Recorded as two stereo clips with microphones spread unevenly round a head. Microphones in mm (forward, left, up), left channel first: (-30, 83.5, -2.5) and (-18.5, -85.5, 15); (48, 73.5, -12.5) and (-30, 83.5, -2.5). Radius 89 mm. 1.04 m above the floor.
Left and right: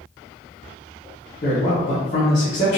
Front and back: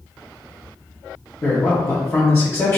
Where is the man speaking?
50° left, 1.0 m.